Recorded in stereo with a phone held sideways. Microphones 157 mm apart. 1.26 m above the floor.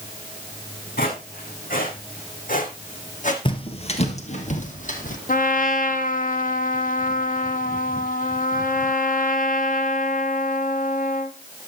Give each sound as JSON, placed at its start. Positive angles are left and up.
{"t": 1.0, "sound": "footsteps", "side_deg": 70, "distance_m": 3.5}
{"t": 3.5, "sound": "footsteps", "side_deg": 35, "distance_m": 1.4}
{"t": 5.3, "sound": "a trumpet", "side_deg": 60, "distance_m": 0.9}